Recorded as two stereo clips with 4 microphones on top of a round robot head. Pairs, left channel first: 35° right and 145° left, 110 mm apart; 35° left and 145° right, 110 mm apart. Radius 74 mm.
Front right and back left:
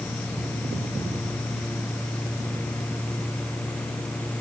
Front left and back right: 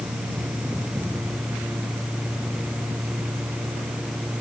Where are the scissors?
I don't hear scissors.